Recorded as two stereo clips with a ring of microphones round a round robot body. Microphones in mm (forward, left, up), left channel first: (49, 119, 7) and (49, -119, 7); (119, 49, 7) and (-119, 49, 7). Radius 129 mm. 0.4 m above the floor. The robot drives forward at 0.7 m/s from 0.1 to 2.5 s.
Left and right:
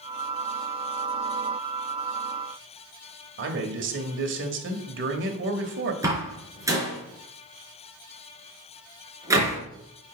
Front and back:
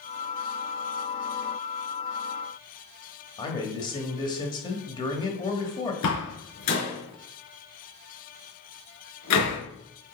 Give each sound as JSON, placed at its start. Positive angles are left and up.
{"t": 3.4, "sound": "a man speaking", "azimuth_deg": -70, "distance_m": 1.7}
{"t": 6.0, "sound": "a door slam", "azimuth_deg": -15, "distance_m": 4.0}